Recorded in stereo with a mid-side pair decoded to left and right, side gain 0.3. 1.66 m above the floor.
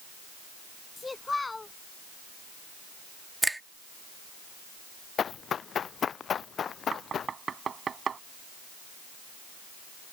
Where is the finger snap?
15° right.